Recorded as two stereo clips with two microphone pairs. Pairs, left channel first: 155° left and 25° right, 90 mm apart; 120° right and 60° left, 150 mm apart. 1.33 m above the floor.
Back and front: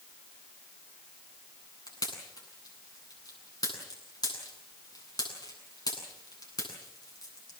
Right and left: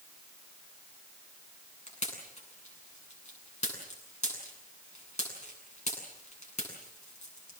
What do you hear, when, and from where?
1.9 s a pop: 160° right, 8.5 m